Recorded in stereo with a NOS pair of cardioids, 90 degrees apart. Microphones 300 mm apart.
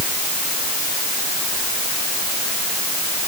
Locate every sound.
Only background noise.